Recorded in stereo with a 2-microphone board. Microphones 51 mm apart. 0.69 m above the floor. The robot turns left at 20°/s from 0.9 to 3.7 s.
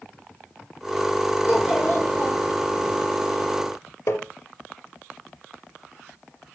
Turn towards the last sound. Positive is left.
turn(degrees=55)  # may be behind; listen again after turning